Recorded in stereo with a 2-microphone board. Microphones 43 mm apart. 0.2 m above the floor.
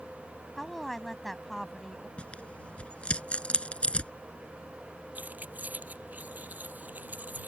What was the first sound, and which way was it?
A woman speaking, 5° left (ahead or behind).